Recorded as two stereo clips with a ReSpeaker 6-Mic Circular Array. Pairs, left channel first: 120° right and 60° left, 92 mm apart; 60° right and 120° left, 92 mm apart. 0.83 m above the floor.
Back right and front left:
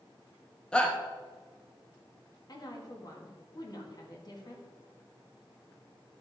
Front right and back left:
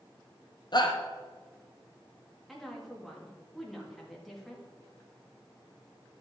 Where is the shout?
45° right, 0.8 m.